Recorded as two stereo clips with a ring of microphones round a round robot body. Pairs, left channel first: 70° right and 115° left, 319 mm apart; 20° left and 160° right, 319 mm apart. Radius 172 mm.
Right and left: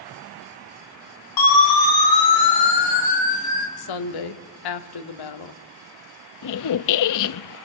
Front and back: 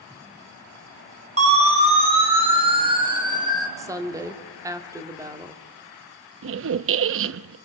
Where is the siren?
85° right, 5.5 m; by 3.7 s 80° right, 4 m.